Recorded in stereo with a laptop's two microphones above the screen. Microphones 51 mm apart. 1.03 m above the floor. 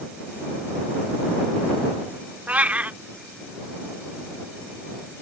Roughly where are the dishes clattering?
I don't hear dishes clattering.